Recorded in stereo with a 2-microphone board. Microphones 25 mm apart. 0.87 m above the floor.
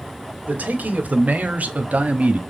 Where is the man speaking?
80° right, 2 m; by 2.4 s 50° right (ahead or behind), 1.4 m.